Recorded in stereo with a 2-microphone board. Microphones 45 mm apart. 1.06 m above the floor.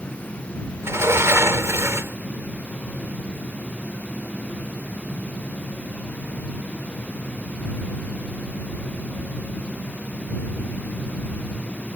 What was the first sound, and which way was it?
A sliding door, 75° right (ahead or behind).